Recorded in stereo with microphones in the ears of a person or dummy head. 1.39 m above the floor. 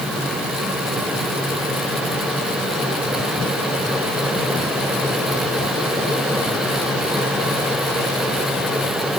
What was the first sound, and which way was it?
Only background noise.